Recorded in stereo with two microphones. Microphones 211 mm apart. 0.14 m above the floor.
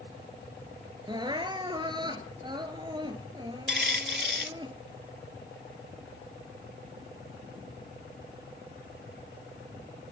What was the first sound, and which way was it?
Crying, 20° right (ahead or behind).